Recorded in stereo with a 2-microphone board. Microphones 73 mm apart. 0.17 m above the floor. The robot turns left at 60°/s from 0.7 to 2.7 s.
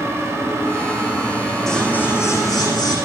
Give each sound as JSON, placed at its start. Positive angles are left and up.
{"t": 1.7, "sound": "scissors", "azimuth_deg": 175, "distance_m": 6.0}